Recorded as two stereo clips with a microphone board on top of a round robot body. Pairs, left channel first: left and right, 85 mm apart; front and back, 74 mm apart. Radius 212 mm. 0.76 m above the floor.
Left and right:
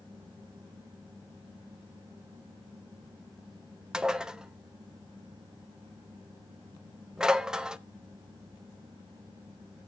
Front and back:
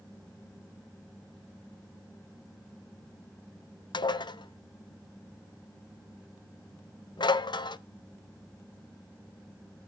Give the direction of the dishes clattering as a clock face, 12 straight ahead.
12 o'clock.